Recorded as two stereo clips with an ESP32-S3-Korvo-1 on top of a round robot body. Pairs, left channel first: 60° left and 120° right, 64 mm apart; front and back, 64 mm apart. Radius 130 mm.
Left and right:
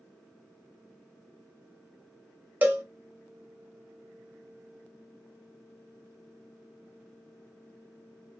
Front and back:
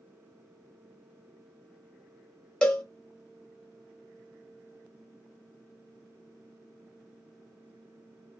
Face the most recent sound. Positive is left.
turn(degrees=-70)